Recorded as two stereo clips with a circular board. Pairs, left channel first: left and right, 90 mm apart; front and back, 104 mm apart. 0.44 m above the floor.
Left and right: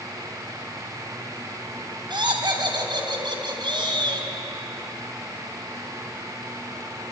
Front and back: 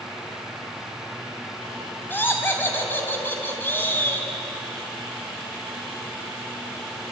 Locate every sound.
2.1 s laughter: 70° right, 4 m